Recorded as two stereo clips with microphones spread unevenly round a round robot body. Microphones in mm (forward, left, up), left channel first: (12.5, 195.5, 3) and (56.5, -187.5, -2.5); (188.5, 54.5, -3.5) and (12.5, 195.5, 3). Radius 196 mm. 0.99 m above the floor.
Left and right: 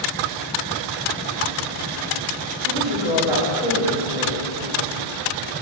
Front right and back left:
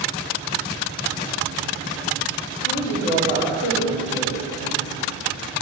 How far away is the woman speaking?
About 4.5 m.